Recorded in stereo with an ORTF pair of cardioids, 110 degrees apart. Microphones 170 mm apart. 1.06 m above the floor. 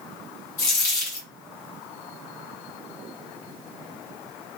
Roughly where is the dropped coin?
Ahead left.